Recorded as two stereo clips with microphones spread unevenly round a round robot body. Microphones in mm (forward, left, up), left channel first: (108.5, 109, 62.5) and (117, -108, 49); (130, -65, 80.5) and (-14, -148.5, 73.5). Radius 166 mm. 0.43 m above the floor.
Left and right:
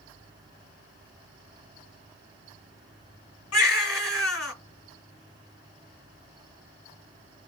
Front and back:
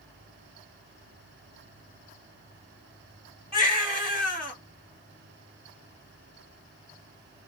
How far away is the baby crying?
About 1.4 m.